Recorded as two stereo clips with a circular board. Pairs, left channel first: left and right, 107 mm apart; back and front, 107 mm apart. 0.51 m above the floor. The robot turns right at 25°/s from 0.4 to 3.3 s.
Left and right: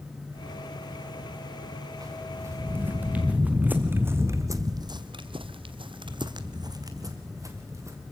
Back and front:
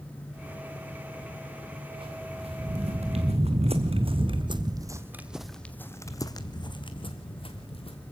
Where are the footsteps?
35° right, 2.5 m; by 8.0 s 150° right, 2 m.